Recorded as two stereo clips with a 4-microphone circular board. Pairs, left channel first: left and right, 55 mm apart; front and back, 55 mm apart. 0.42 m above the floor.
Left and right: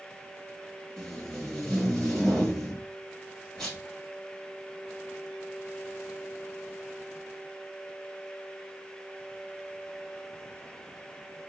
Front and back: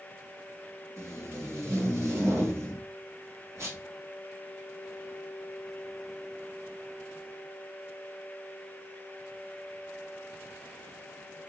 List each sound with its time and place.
1.0 s tape being pulled: 170° left, 1.8 m